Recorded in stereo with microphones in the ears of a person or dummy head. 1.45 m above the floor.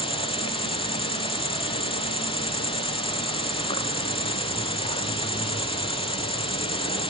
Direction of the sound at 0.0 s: 25° left (ahead or behind).